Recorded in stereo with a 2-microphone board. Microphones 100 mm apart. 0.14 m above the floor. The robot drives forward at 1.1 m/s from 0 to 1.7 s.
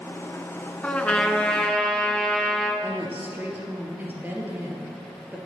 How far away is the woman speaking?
About 3 m.